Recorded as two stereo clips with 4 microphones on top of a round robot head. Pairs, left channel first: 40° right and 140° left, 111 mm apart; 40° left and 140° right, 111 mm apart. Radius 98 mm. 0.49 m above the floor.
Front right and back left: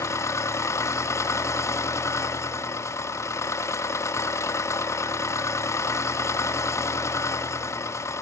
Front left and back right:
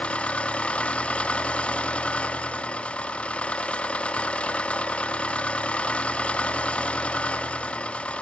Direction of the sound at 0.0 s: 25° right.